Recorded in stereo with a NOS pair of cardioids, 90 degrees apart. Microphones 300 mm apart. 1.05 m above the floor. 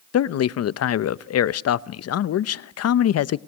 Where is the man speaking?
55° left, 0.8 m.